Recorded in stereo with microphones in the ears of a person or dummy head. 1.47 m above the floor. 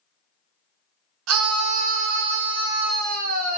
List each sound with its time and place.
1.3 s a scream: 80° right, 0.9 m; by 3.6 s 35° right (ahead or behind), 1.4 m